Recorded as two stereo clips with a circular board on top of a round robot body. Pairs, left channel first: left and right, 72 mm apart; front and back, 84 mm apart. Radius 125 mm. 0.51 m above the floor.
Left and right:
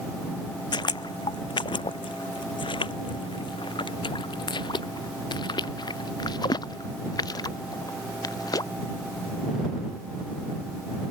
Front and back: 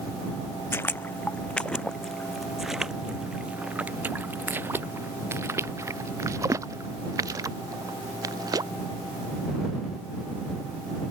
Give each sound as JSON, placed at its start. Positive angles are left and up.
{"t": 0.7, "sound": "footsteps", "azimuth_deg": 65}